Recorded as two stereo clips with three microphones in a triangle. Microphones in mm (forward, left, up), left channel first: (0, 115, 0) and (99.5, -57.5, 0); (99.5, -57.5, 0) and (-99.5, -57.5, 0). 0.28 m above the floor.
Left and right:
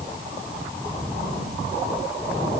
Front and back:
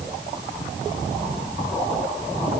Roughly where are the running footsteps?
I don't hear running footsteps.